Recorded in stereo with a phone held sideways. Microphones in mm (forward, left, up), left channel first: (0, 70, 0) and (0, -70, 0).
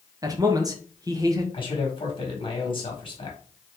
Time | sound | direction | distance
0.2 | a man speaking | 25° right (ahead or behind) | 0.8 m
1.5 | a man speaking | 40° left (ahead or behind) | 1.3 m